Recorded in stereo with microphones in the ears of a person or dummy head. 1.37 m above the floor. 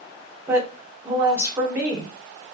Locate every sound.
0.5 s a woman speaking: 15° right (ahead or behind), 1.0 m